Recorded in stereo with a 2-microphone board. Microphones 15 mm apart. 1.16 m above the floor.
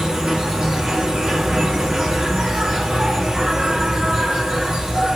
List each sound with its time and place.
0.0 s an insect: 70° right (ahead or behind), 4.5 m